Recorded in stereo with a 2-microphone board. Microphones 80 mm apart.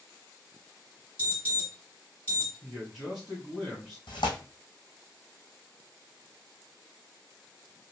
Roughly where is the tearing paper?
Left.